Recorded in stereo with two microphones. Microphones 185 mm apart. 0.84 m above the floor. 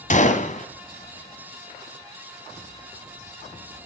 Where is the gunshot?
40° left (ahead or behind), 1.7 m.